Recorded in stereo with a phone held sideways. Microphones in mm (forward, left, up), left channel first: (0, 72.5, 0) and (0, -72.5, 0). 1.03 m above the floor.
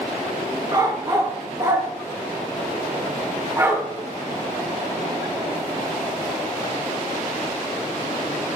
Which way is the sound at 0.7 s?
30° right (ahead or behind).